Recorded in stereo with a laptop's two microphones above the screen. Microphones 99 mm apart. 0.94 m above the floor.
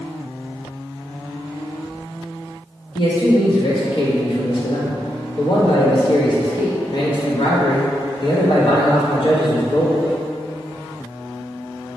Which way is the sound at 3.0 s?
55° left (ahead or behind).